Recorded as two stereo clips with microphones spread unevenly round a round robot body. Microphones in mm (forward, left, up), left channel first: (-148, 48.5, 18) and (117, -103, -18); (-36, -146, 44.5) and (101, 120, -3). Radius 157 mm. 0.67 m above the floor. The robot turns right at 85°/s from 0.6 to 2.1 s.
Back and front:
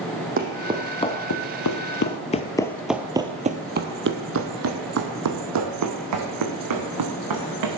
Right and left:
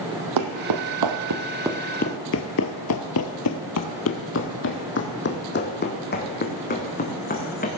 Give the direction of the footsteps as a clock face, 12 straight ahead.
11 o'clock.